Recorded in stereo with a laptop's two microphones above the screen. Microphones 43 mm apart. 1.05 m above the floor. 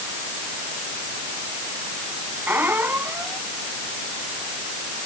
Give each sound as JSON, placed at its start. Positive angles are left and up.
{"t": 2.5, "sound": "a squeak", "side_deg": -55}